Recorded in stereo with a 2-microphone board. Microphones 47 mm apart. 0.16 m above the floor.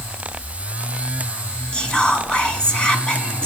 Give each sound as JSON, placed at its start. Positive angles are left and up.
{"t": 1.7, "sound": "whispering", "side_deg": 20, "distance_m": 1.0}